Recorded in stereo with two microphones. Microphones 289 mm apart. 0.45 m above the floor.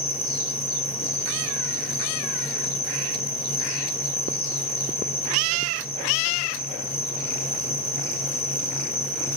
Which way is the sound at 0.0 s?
45° left (ahead or behind).